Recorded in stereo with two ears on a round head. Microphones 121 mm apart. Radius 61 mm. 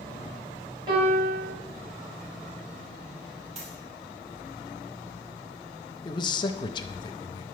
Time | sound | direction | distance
0.9 | a piano | 35° right (ahead or behind) | 4 m
3.5 | a dropped coin | 55° right (ahead or behind) | 2.5 m
6.0 | a man speaking | 35° left (ahead or behind) | 0.5 m